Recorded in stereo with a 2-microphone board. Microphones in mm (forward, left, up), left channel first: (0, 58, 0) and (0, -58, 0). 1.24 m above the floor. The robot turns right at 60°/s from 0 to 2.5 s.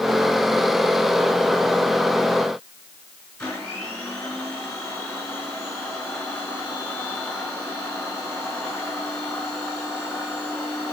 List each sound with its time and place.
3.4 s a blender: 10° left (ahead or behind), 5 m